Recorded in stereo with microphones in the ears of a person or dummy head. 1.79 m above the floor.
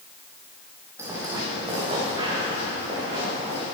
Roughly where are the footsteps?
Centre.